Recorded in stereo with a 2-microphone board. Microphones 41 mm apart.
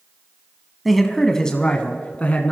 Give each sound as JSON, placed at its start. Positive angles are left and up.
{"t": 0.8, "sound": "a man speaking", "side_deg": 0, "distance_m": 1.0}